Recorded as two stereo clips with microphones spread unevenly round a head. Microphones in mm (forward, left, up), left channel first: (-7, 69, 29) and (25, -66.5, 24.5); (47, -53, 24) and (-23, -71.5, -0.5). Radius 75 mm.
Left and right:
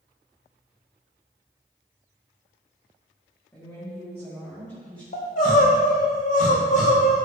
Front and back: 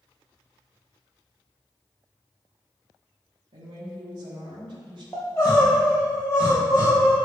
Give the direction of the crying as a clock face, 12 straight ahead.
10 o'clock.